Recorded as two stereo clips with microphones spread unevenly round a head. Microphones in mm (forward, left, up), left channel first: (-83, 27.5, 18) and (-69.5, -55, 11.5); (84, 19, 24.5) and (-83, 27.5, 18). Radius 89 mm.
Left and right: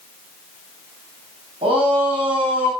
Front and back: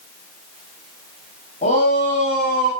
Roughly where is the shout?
Ahead right.